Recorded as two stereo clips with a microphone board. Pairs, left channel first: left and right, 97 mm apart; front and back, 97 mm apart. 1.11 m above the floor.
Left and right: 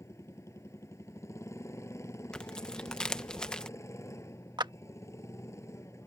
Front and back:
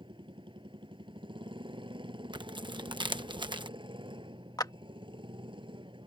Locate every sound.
0.0 s a motorcycle: 150° left
2.3 s tearing paper: 170° left
4.6 s a clap: 45° right